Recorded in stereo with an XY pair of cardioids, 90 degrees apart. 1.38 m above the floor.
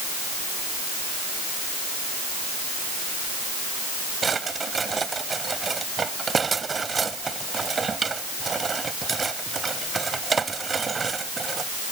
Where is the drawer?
40° right.